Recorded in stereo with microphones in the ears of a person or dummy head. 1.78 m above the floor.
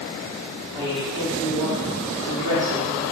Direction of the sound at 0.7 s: 30° right (ahead or behind).